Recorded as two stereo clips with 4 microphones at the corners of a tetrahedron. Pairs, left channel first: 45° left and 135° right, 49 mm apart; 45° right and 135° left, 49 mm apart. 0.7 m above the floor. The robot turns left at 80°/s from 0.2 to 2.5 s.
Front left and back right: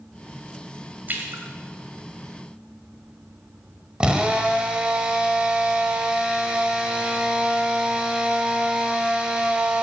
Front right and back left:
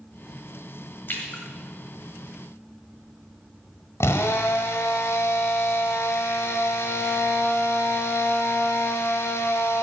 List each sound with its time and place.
1.1 s a splash: 85° right, 1.6 m; by 1.4 s 115° right, 1.6 m
4.0 s a drill: 65° right, 1.2 m